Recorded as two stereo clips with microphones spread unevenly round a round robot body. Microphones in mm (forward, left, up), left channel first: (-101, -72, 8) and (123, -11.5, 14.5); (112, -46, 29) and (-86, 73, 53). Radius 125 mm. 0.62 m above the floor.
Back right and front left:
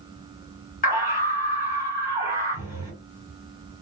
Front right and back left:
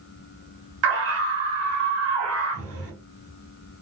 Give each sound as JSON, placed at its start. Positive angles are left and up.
{"t": 0.8, "sound": "a scream", "azimuth_deg": 145, "distance_m": 2.0}